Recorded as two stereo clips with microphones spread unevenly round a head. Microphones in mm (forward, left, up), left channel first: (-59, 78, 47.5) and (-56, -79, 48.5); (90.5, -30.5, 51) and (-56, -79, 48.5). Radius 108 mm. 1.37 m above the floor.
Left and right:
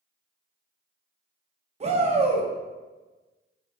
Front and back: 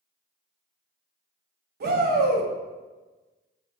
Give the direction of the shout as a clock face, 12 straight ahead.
5 o'clock.